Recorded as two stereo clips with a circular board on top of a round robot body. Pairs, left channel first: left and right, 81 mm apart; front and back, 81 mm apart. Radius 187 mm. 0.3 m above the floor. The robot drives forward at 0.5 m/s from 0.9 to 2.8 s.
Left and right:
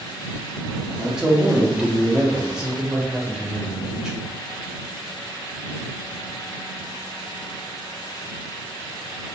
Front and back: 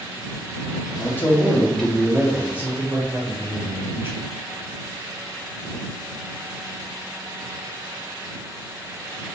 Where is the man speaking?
15° right, 1.2 m; by 4.2 s 160° right, 1.1 m.